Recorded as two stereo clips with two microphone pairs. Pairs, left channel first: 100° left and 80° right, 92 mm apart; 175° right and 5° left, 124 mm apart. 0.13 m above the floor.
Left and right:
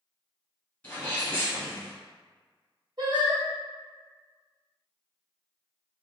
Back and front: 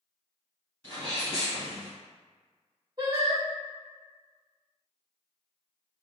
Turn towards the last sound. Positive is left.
turn(degrees=-45)